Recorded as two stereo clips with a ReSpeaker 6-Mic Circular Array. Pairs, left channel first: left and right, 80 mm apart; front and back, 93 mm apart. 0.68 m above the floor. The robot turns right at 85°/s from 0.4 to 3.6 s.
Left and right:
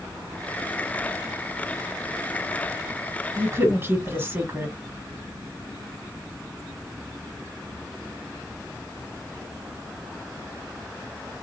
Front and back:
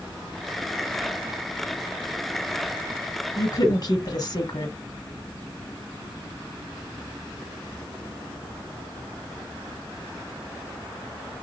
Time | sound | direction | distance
3.4 | a woman speaking | 55° right | 2.0 m